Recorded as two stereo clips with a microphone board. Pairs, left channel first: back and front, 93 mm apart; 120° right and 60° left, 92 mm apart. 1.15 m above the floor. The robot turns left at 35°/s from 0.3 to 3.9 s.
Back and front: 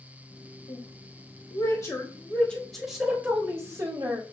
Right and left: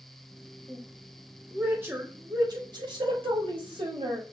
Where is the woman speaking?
165° left, 4 m; by 4.2 s 50° left, 4 m.